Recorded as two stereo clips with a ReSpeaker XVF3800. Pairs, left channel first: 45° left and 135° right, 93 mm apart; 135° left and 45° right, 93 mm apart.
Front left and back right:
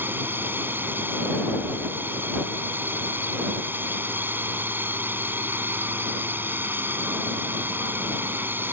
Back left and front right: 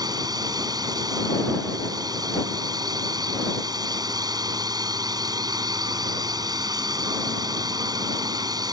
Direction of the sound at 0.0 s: 75° right.